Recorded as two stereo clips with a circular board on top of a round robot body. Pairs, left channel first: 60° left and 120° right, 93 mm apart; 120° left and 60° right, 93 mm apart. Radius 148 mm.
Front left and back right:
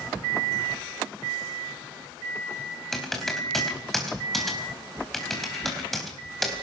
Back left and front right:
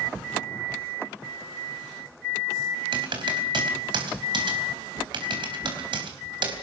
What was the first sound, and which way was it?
Typing on a keyboard, 30° right.